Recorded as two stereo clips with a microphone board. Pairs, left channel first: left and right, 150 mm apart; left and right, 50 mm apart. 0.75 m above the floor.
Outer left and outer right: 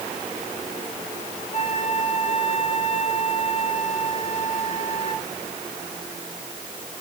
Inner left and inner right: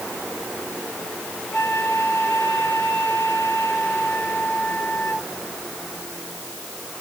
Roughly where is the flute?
Left.